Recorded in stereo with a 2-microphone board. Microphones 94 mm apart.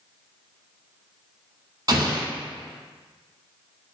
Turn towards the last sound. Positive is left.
turn(degrees=-40)  # may be behind; listen again after turning